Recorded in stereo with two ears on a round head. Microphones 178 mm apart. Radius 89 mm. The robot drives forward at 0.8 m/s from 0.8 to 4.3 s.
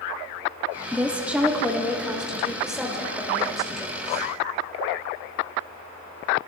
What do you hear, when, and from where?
0.9 s a woman speaking: 5° right (ahead or behind), 0.9 m; by 4.2 s centre (ahead or behind), 3 m